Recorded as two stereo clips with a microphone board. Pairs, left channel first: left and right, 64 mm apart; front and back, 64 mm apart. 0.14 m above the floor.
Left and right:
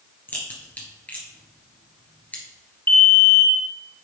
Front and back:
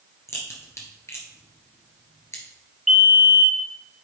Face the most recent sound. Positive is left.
turn(degrees=95)